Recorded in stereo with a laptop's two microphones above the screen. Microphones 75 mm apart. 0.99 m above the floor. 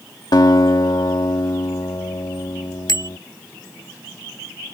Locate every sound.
0.3 s a guitar: 70° left (ahead or behind)
2.9 s a bicycle bell: 70° left (ahead or behind)